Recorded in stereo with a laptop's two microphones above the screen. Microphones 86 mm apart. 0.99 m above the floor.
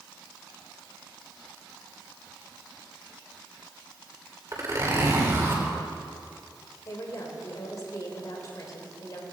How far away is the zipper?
About 3 m.